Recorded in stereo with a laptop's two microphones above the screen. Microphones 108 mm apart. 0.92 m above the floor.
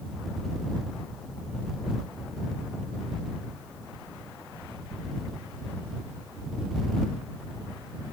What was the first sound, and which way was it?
Only background noise.